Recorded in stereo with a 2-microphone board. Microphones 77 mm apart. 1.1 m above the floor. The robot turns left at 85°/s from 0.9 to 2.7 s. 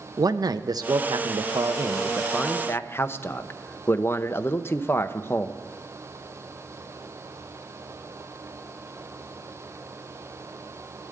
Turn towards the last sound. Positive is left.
turn(degrees=145)